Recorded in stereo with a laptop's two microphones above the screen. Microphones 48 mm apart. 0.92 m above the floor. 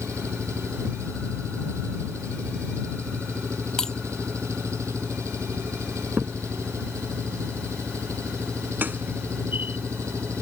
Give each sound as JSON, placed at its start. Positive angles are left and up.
{"t": 0.0, "sound": "an engine running", "side_deg": -85}
{"t": 3.8, "sound": "breaking glass", "side_deg": 15}
{"t": 6.2, "sound": "a crack", "side_deg": -40}